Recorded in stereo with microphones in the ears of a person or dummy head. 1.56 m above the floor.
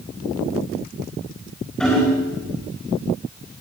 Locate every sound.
1.8 s hammering: centre (ahead or behind), 5 m